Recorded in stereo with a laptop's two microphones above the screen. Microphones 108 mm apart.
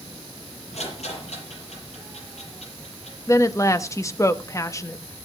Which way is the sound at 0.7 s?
85° left.